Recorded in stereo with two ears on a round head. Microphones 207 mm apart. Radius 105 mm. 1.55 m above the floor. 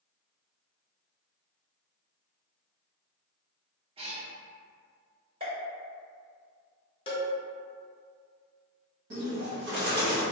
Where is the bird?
50° right (ahead or behind), 1.3 m.